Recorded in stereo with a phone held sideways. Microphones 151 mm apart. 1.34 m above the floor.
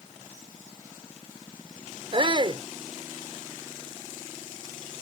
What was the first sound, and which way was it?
A shout, 40° right (ahead or behind).